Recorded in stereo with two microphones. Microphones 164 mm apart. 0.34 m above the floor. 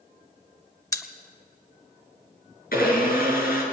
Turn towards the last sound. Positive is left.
turn(degrees=65)  # may be behind; listen again after turning